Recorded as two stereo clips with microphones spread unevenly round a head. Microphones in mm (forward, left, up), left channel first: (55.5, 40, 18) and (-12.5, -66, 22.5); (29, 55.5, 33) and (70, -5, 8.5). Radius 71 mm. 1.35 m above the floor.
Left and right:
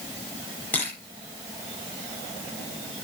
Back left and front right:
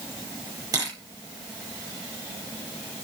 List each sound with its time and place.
0.7 s a camera shutter: 20° right, 7 m